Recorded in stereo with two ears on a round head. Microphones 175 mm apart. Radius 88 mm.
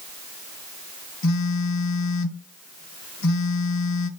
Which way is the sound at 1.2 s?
75° left (ahead or behind).